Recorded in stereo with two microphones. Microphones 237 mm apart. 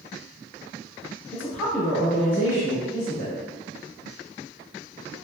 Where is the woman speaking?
10° left (ahead or behind), 1.5 m; by 3.4 s 20° right (ahead or behind), 1.5 m.